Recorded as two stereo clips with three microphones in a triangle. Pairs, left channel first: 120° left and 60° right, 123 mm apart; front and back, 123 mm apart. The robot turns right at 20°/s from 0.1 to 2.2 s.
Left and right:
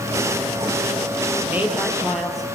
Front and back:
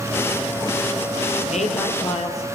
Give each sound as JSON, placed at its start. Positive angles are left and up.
{"t": 1.5, "sound": "a woman speaking", "azimuth_deg": 15, "distance_m": 5.0}